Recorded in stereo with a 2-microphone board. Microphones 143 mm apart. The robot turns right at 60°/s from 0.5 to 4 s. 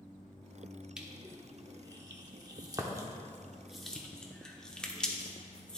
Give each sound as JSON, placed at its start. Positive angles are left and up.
{"t": 1.0, "sound": "crushing", "side_deg": -5, "distance_m": 0.8}